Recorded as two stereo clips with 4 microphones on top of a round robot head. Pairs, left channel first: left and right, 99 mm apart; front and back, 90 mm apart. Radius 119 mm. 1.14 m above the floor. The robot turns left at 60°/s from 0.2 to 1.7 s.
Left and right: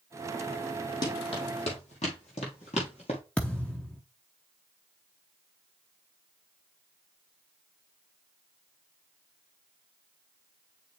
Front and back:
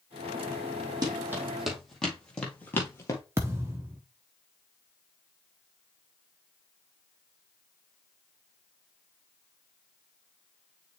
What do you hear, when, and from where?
1.0 s running footsteps: 135° left, 2.5 m; by 3.2 s 40° left, 1.4 m
3.4 s a thud: 155° left, 0.5 m